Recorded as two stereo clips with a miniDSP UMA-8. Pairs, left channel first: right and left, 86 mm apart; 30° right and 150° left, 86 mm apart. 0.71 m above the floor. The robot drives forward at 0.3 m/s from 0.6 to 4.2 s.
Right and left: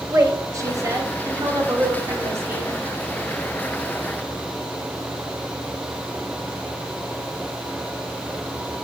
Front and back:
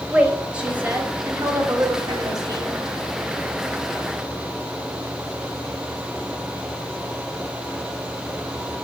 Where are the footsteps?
I don't hear footsteps.